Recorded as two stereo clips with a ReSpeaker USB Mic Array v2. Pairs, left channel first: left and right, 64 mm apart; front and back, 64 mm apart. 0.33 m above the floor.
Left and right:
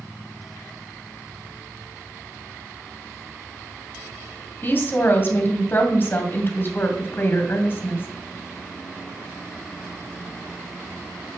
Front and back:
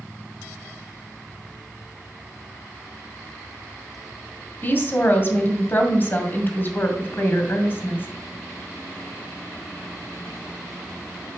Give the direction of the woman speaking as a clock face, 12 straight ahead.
11 o'clock.